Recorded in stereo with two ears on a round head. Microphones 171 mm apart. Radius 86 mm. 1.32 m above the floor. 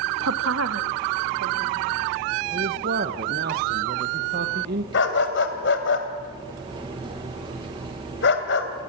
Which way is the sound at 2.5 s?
55° right (ahead or behind).